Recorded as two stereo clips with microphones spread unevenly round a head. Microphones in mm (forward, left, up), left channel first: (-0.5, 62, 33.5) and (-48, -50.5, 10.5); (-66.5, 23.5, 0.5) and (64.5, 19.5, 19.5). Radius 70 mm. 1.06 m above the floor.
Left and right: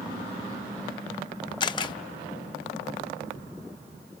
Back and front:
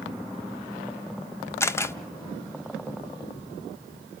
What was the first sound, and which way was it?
A camera shutter, 105° left.